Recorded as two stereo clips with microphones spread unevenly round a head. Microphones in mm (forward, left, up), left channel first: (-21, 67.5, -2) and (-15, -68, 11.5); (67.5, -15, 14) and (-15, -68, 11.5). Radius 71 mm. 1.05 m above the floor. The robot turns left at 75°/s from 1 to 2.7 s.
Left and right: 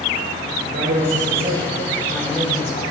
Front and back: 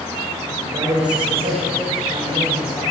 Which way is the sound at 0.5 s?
105° right.